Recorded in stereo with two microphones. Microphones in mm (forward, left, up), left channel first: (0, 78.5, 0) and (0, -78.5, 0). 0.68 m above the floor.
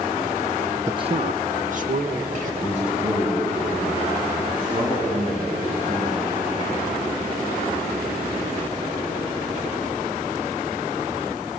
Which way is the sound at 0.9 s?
15° right (ahead or behind).